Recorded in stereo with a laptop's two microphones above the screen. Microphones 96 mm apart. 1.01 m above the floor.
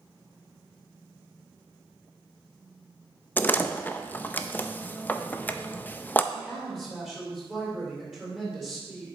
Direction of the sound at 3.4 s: 20° left (ahead or behind).